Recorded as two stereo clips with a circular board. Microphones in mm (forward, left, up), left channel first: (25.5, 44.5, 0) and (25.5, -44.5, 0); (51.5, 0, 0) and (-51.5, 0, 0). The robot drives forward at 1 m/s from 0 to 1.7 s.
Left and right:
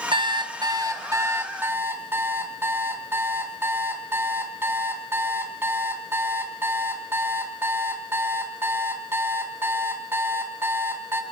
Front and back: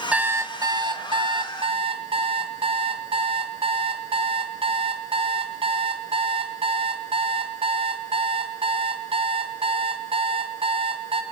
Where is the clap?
I don't hear a clap.